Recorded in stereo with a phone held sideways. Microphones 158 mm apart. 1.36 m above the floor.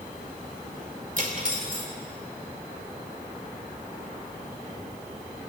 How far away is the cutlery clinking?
About 2.5 m.